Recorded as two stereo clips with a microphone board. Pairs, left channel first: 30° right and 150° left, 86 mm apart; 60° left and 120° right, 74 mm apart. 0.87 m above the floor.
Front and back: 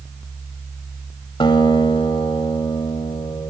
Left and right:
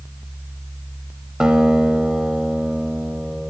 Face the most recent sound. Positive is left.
turn(degrees=-40)